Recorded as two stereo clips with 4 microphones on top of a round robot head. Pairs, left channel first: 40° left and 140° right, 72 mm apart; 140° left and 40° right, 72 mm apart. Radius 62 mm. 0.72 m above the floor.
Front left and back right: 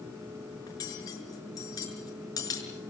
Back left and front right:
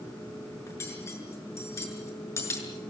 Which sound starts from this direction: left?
Cutlery clinking, at 0.7 s.